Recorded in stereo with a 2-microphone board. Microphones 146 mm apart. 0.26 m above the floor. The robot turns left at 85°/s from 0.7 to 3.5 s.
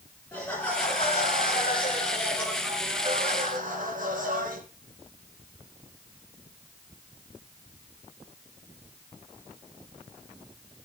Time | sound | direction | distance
0.3 | laughter | 160° left | 3.5 m